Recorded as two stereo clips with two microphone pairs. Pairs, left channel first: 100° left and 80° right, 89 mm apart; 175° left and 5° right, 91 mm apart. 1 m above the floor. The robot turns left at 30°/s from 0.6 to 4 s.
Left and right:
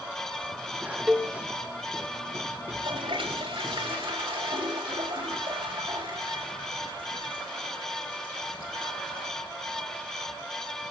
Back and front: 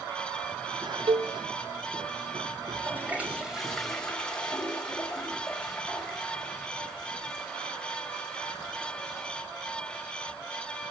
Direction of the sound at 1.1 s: Straight ahead.